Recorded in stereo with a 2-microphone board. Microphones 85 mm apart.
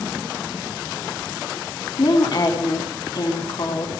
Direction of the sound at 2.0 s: 55° left (ahead or behind).